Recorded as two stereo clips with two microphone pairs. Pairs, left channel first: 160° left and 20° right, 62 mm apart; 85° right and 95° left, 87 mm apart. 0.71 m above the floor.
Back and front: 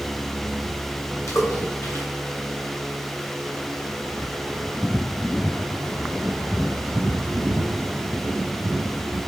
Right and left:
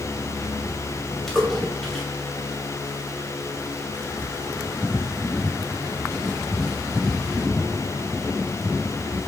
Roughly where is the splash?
Behind.